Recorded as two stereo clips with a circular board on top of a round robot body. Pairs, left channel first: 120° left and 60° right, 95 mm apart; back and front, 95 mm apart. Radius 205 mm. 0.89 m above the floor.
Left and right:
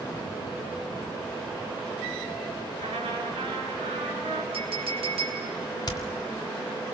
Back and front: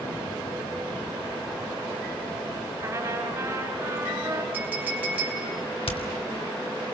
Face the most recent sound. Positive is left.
turn(degrees=165)